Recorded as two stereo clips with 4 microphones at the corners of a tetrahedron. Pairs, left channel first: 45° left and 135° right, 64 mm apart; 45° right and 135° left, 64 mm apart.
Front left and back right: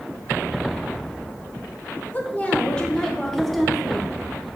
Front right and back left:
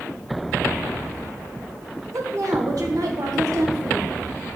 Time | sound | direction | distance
2.1 | a woman speaking | 105° left | 1.4 m